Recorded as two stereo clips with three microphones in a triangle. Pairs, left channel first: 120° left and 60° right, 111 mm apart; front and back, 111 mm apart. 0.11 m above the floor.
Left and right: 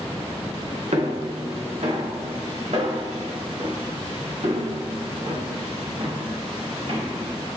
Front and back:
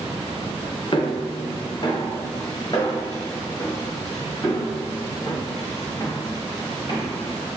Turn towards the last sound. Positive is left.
turn(degrees=-55)